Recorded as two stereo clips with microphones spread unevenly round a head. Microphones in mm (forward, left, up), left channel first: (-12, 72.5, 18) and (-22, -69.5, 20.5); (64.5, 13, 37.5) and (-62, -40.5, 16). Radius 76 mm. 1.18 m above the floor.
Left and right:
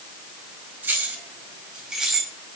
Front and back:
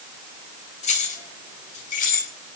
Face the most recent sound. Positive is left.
turn(degrees=-5)